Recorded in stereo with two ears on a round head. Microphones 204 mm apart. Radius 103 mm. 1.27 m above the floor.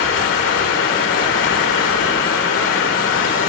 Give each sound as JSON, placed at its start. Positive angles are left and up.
{"t": 0.0, "sound": "running water", "side_deg": 60, "distance_m": 1.5}